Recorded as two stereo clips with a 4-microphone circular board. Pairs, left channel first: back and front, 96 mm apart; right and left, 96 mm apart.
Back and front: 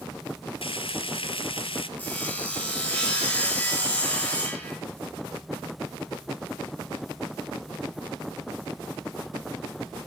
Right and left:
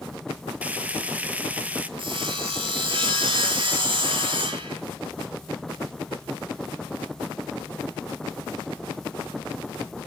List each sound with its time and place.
0.6 s frying: 165° left, 0.8 m
2.0 s sawing: 110° left, 4.5 m